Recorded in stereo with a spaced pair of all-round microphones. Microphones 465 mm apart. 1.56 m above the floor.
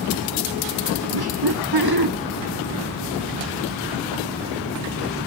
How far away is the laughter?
About 1.3 m.